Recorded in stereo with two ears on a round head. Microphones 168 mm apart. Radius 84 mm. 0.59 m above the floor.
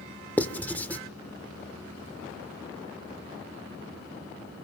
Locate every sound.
0.4 s writing: 10° left (ahead or behind), 1.3 m